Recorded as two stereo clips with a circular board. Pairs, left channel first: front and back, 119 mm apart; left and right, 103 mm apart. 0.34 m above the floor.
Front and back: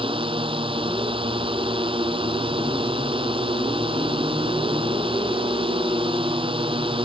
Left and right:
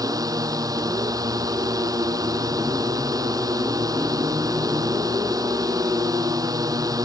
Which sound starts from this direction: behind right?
A drone, at 0.0 s.